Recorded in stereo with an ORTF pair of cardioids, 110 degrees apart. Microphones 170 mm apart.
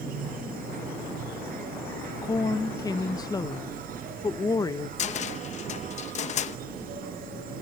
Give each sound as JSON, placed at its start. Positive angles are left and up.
{"t": 0.0, "sound": "an insect", "azimuth_deg": -65, "distance_m": 3.5}
{"t": 2.2, "sound": "a woman speaking", "azimuth_deg": 20, "distance_m": 1.1}
{"t": 5.0, "sound": "a cupboard door", "azimuth_deg": 45, "distance_m": 0.8}